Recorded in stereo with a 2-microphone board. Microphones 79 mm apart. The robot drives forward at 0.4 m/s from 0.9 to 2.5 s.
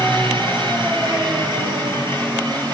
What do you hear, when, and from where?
0.0 s an engine running: 85° right, 5.5 m; by 2.8 s 80° right, 5.5 m